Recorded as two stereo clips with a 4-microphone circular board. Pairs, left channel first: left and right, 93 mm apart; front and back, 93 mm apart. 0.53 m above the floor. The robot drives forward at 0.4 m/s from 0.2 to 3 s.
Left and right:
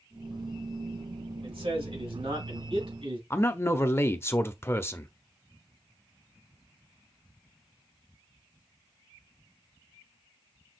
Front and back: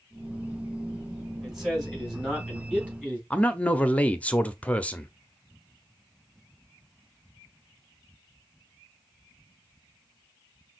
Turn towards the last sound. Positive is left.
turn(degrees=60)